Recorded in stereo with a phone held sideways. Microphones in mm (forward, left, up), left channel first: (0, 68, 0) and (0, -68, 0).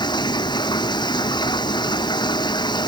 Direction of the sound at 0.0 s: 35° left (ahead or behind).